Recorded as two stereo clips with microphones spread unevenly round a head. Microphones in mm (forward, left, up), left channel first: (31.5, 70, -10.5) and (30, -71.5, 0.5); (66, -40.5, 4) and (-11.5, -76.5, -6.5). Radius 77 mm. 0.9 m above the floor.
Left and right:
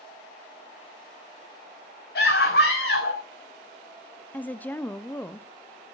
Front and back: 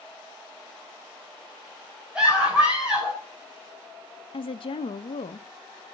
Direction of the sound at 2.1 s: 120° left.